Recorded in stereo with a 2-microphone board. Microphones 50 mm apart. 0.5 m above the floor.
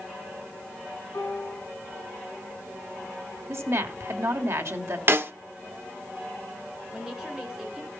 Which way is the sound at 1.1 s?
65° left (ahead or behind).